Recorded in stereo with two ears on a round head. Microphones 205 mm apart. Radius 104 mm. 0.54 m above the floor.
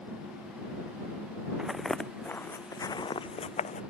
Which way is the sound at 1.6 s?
5° right (ahead or behind).